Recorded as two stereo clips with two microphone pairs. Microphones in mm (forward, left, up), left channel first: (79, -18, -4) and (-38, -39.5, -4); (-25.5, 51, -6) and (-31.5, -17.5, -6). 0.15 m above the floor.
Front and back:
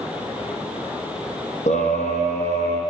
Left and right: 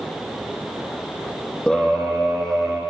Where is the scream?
10° left, 5.5 m; by 2.8 s straight ahead, 7 m.